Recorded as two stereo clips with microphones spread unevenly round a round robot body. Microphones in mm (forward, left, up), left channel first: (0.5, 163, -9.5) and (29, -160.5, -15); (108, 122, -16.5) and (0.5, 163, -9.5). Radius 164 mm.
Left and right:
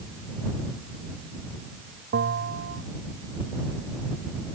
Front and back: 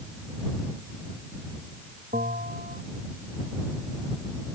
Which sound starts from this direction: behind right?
A bell, at 2.1 s.